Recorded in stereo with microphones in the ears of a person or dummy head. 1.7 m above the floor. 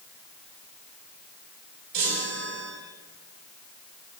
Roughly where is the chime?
Right.